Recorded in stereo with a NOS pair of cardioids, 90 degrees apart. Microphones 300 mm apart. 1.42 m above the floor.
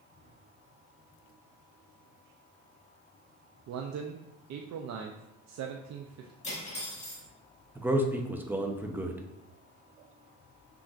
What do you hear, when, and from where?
3.7 s a man speaking: 60° right, 0.6 m
6.4 s cutlery clinking: 25° left, 1.9 m
7.8 s a man speaking: 5° right, 0.8 m